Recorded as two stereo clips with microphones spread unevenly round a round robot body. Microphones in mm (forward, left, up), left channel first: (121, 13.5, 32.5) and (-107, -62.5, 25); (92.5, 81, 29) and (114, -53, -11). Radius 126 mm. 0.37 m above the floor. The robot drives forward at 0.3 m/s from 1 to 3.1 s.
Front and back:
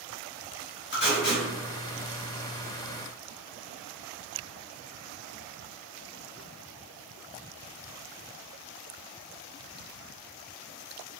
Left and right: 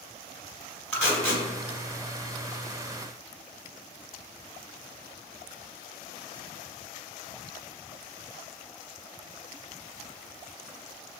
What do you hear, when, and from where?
0.9 s tape being pulled: 5° left, 1.6 m